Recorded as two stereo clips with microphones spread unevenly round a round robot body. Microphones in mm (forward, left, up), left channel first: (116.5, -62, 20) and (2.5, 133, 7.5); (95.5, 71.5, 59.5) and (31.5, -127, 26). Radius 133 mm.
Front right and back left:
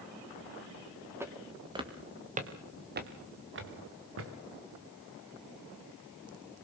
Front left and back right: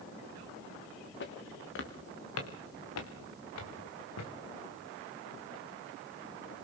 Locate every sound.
1.2 s footsteps: 40° left, 4 m; by 4.3 s 100° left, 4.5 m